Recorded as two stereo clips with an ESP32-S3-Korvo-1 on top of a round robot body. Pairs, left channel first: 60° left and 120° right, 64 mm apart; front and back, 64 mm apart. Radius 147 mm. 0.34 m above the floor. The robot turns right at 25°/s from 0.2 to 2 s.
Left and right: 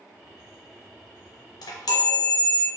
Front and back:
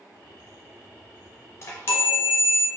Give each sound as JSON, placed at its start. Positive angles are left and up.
{"t": 1.6, "sound": "a chime", "azimuth_deg": 45, "distance_m": 0.6}